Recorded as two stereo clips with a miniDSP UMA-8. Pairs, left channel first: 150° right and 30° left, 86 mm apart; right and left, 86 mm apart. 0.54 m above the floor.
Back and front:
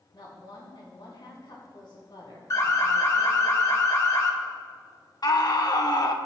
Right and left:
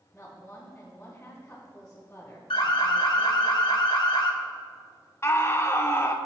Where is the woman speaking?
160° right, 3 m.